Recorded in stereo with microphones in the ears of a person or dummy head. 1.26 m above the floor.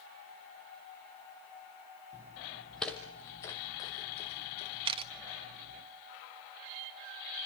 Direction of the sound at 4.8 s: 35° right (ahead or behind).